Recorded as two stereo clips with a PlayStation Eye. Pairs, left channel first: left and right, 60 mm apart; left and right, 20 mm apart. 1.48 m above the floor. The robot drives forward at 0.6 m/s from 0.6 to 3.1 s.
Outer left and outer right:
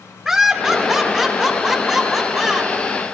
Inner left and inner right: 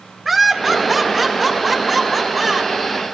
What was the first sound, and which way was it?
Laughter, 5° right (ahead or behind).